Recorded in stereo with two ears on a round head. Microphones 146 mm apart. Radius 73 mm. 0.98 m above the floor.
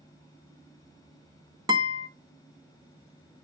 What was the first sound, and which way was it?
A guitar, 25° right (ahead or behind).